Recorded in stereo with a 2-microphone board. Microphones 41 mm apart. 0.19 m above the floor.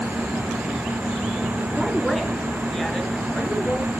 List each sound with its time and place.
1.8 s a woman speaking: 5° left (ahead or behind), 2.5 m; by 3.9 s 25° left (ahead or behind), 3.5 m